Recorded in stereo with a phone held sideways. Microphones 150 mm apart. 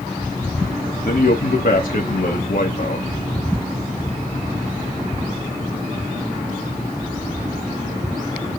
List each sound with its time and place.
1.1 s a man speaking: 70° left (ahead or behind), 1.2 m